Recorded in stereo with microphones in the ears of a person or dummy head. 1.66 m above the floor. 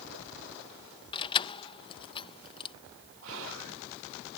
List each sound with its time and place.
1.1 s keys jangling: 25° left (ahead or behind)
3.2 s whispering: 75° right (ahead or behind)